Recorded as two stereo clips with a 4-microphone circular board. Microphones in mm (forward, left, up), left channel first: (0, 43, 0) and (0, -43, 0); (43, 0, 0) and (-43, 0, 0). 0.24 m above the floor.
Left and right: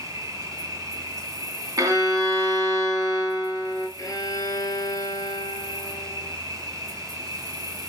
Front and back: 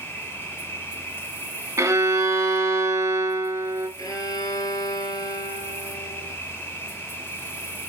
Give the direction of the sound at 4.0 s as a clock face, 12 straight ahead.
11 o'clock.